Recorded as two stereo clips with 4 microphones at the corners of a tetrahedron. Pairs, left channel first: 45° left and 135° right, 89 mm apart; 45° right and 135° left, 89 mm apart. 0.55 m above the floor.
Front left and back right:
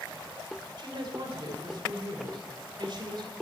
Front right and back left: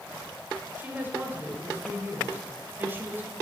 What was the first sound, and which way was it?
A woman speaking, 160° right.